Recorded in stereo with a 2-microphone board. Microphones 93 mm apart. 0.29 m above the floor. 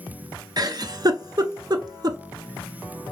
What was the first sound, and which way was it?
A giggle, 45° right (ahead or behind).